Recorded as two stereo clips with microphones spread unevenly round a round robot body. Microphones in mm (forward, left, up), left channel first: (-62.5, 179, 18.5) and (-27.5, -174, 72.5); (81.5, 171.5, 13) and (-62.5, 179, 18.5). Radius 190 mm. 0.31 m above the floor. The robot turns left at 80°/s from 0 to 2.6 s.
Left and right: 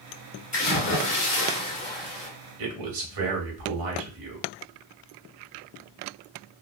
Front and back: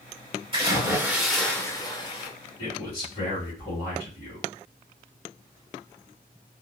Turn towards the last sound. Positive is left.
turn(degrees=-70)